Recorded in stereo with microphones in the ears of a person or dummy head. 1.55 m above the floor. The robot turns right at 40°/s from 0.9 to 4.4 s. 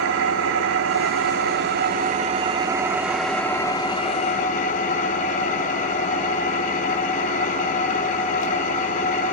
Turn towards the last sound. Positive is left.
turn(degrees=50)